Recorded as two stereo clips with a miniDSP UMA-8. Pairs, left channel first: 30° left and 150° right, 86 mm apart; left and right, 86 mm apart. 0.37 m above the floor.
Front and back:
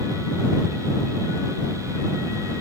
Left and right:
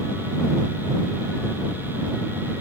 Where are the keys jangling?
No keys jangling in this recording.